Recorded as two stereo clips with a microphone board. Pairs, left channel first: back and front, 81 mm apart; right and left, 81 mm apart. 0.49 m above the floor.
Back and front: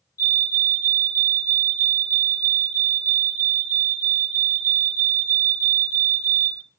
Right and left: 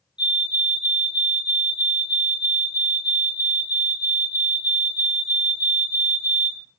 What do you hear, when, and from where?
0.2 s a fire alarm: 165° left, 3 m